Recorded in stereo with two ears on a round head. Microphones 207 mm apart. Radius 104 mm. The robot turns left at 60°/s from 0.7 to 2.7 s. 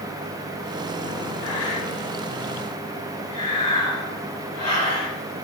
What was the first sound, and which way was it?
Breathing, 75° left (ahead or behind).